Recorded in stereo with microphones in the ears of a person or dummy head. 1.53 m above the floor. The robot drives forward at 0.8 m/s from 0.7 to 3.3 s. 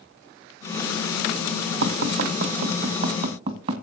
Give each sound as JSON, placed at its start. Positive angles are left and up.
{"t": 1.8, "sound": "tapping", "side_deg": -55, "distance_m": 1.1}